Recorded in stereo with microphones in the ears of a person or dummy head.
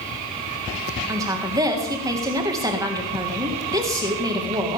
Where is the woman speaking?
25° right (ahead or behind), 1.7 m.